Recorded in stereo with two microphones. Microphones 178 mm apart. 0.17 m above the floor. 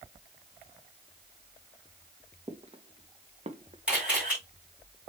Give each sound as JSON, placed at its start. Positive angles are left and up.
{"t": 2.5, "sound": "footsteps", "side_deg": -35, "distance_m": 1.7}
{"t": 3.9, "sound": "a camera shutter", "side_deg": -5, "distance_m": 4.5}